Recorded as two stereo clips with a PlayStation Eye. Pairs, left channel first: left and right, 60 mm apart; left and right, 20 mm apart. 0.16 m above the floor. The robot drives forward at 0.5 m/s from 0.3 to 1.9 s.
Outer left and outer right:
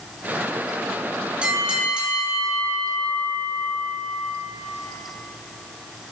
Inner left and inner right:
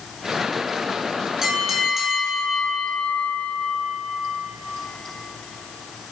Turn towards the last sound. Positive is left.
turn(degrees=-20)  # may be behind; listen again after turning